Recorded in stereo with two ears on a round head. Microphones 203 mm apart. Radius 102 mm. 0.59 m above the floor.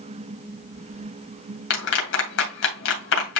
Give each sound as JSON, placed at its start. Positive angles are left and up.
{"t": 1.7, "sound": "a clap", "side_deg": 60, "distance_m": 2.5}